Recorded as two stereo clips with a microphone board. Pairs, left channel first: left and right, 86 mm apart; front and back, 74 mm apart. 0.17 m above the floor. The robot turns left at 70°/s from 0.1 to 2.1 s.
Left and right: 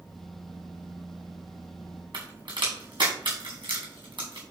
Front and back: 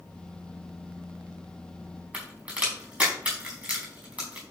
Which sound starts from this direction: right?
A crack, at 2.1 s.